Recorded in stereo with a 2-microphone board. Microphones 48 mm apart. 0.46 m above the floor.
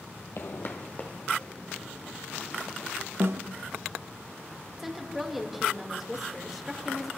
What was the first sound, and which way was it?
Footsteps, 65° left (ahead or behind).